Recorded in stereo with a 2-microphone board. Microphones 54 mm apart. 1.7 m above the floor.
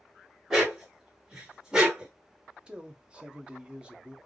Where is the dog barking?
5° right (ahead or behind), 1.9 m; by 2.1 s 15° right (ahead or behind), 1.4 m.